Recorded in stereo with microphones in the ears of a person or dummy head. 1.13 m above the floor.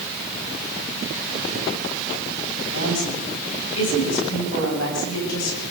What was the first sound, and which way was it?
A woman speaking, 80° left.